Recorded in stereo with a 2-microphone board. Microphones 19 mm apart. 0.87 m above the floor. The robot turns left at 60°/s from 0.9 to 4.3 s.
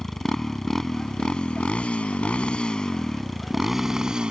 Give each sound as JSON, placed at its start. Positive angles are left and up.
{"t": 0.0, "sound": "a motorcycle", "azimuth_deg": 155}